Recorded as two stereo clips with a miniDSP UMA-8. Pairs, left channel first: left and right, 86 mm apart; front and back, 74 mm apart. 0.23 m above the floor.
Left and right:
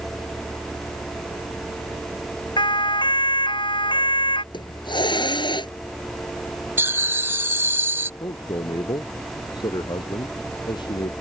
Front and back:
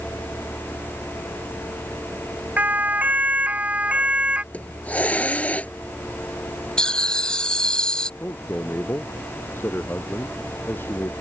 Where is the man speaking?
60° left.